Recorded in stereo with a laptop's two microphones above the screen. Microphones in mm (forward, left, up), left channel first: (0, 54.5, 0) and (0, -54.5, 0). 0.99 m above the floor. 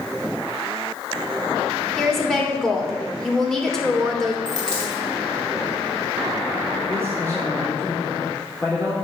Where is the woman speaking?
5° left (ahead or behind), 3 m.